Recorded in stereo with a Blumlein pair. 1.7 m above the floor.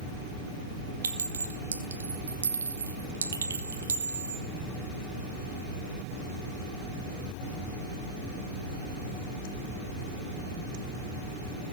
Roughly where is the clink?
Right.